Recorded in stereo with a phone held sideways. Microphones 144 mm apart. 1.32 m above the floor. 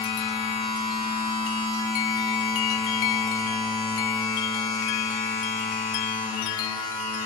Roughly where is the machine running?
Left.